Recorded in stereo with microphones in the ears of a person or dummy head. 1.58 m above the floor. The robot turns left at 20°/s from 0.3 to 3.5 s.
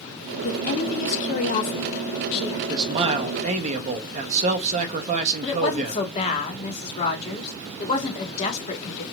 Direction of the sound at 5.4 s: 35° left (ahead or behind).